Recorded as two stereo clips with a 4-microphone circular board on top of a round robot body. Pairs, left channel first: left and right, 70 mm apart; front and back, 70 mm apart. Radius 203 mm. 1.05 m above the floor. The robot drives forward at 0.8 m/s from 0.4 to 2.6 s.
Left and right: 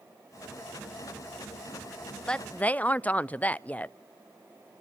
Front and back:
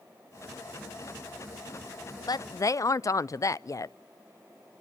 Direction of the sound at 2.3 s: 15° left.